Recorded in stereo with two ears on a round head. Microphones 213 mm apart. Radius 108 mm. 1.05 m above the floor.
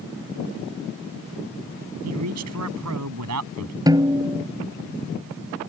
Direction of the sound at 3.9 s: 15° right (ahead or behind).